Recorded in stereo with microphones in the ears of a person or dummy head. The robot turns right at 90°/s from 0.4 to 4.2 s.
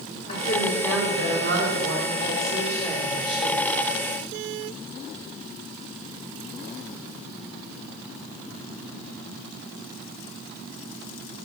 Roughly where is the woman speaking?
Behind left.